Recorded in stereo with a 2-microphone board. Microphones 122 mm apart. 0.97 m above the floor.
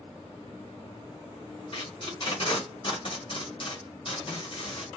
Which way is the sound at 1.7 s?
45° left (ahead or behind).